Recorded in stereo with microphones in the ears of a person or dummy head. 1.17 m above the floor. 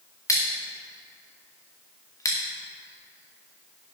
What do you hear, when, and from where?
0.3 s scissors: 20° left (ahead or behind), 1.1 m